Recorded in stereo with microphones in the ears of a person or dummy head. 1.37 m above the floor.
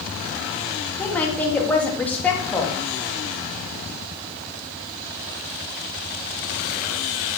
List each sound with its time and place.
1.0 s a woman speaking: 5° left (ahead or behind), 2.5 m